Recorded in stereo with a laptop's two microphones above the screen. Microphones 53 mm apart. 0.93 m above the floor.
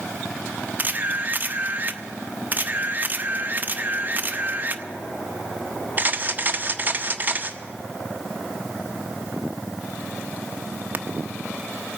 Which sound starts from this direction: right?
A camera shutter, at 0.8 s.